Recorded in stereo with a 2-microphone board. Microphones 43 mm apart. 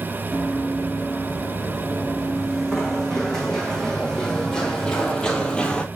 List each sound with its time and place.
0.3 s running footsteps: 5° left (ahead or behind), 4.5 m; by 5.9 s 25° left (ahead or behind), 1.4 m